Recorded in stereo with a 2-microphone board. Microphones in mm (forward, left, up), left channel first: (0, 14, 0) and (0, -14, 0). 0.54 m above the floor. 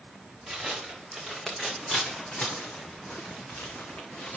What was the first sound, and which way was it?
Footsteps, 5° right (ahead or behind).